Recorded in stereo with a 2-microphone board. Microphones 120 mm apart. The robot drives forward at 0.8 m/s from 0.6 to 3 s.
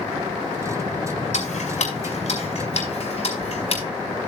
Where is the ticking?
70° left (ahead or behind), 4.5 m; by 3.8 s 55° left (ahead or behind), 5 m.